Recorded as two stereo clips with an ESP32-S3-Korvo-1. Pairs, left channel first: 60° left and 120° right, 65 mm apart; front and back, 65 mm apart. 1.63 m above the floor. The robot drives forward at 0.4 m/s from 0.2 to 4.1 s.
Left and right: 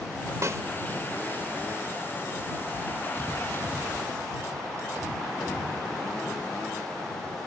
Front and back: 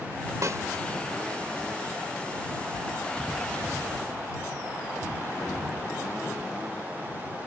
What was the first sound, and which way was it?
A snare drum, 155° right.